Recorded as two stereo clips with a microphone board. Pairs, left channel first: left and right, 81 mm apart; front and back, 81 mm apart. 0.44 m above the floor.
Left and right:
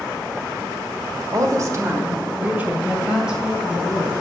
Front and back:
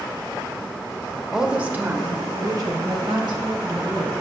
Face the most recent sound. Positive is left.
turn(degrees=-175)